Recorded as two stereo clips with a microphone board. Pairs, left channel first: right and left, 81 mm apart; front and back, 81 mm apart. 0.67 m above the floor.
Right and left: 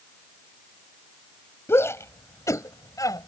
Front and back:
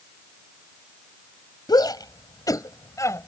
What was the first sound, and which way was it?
A shout, 30° right.